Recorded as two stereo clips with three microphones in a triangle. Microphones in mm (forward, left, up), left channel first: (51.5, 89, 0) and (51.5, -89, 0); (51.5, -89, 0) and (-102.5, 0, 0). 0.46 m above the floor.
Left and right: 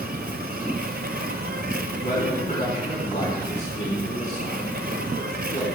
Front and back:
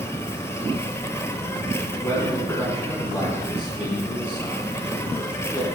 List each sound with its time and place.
0.0 s an insect: 105° right, 0.9 m
2.0 s a man speaking: 50° left, 4.5 m